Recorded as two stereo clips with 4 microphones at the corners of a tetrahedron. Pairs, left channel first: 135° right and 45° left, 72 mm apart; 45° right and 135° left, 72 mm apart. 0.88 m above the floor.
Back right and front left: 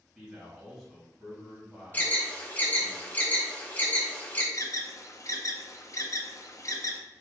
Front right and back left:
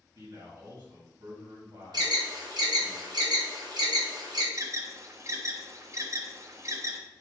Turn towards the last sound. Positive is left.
turn(degrees=-175)